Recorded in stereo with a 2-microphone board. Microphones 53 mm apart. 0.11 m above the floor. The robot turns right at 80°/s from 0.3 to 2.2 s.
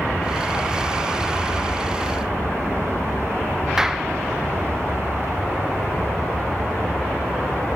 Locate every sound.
3.8 s a clap: 10° right (ahead or behind)